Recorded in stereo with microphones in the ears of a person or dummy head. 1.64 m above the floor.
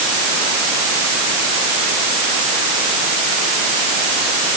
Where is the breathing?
No breathing in this recording.